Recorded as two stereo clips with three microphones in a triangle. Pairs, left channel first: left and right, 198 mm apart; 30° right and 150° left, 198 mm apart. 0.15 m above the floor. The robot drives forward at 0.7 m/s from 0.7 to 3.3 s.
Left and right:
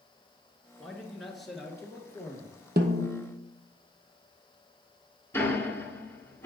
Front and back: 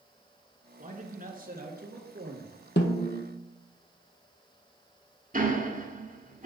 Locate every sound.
0.8 s a man speaking: straight behind, 1.8 m
2.8 s a snare drum: 55° right, 1.5 m; by 3.3 s 70° right, 1.3 m
5.3 s ticking: 165° left, 1.5 m